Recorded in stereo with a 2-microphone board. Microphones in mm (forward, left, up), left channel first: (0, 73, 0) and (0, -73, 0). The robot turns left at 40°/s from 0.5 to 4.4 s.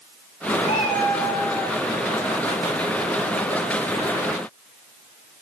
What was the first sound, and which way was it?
A cat meowing, 45° left.